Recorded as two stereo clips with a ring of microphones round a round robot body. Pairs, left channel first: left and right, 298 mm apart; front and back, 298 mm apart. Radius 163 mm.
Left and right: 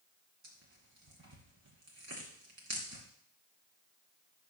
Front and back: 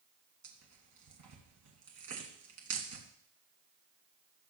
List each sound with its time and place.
0.4 s tearing paper: 145° right, 2.0 m